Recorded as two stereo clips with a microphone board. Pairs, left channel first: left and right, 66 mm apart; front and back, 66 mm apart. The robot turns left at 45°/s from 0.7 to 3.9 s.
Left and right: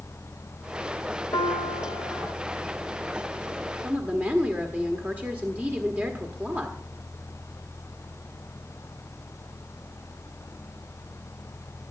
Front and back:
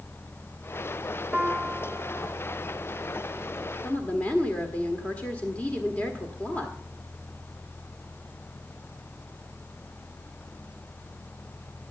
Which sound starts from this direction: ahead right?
A woman speaking, at 3.8 s.